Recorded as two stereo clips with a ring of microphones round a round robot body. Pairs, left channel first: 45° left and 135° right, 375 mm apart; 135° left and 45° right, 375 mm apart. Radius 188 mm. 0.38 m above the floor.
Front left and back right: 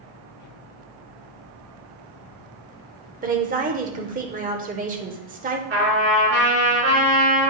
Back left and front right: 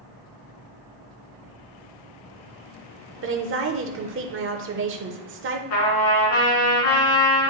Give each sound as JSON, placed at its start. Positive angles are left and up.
{"t": 3.2, "sound": "a woman speaking", "azimuth_deg": -80, "distance_m": 0.9}
{"t": 5.7, "sound": "a trumpet", "azimuth_deg": 165, "distance_m": 3.0}